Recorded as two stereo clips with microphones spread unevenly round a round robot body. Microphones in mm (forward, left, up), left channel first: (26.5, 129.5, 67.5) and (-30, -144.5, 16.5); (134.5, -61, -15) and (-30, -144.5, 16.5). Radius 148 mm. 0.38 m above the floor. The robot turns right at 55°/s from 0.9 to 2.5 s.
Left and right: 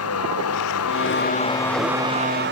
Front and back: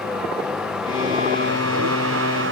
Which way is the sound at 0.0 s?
120° left.